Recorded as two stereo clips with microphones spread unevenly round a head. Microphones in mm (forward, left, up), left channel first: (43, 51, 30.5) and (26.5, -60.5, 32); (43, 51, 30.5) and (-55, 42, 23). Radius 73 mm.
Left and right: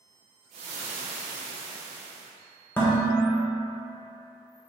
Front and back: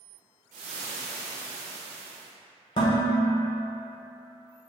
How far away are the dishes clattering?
About 1.0 m.